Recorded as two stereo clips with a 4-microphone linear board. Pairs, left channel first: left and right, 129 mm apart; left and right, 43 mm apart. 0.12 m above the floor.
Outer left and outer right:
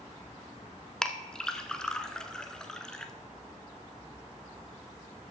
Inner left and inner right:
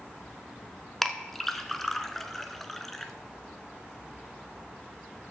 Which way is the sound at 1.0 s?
5° left (ahead or behind).